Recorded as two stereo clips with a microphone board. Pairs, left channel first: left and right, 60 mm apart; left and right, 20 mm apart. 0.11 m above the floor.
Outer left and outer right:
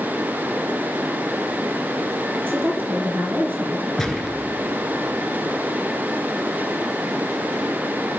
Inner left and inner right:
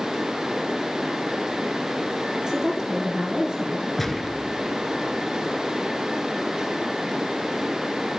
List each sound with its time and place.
2.3 s a woman speaking: 35° right (ahead or behind), 1.9 m
4.0 s a gunshot: 10° left (ahead or behind), 1.1 m